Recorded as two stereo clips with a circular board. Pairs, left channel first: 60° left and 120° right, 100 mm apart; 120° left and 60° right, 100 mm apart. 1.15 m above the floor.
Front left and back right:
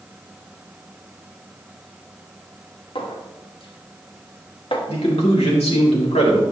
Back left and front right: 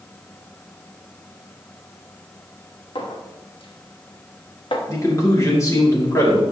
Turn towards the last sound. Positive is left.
turn(degrees=60)